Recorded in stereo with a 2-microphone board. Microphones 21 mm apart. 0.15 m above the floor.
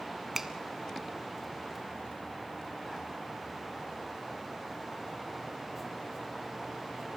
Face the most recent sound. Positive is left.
turn(degrees=-20)  # may be behind; listen again after turning